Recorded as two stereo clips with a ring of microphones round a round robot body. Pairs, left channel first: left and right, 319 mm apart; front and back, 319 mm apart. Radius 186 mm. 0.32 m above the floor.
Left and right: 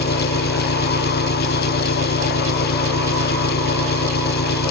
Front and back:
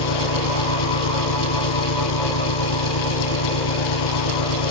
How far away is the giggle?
No giggle in this recording.